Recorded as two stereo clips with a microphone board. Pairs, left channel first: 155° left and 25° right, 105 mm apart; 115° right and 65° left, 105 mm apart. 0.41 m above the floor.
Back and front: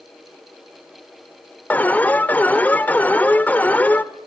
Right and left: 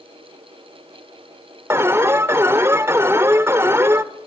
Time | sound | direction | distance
1.7 | an alarm | 100° left | 1.1 m